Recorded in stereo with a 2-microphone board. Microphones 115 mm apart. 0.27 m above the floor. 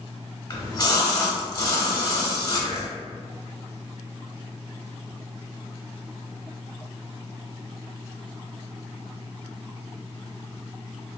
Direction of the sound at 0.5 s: 30° left (ahead or behind).